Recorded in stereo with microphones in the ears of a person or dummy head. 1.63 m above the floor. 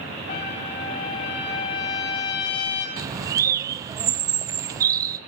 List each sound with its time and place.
0.3 s a trumpet: 30° left (ahead or behind), 1.6 m
3.0 s a bird: 25° right (ahead or behind), 0.5 m